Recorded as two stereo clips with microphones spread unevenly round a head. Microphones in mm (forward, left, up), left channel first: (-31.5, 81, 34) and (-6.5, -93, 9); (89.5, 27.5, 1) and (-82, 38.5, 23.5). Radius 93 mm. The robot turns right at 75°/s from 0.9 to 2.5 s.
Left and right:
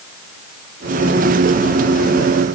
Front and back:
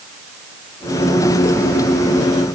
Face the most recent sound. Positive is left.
No sound to turn to.